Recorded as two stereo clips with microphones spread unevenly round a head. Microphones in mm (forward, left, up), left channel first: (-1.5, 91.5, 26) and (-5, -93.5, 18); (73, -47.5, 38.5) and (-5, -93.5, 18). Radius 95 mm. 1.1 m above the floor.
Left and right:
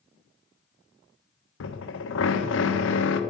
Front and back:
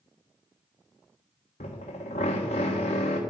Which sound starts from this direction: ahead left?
A drill, at 1.6 s.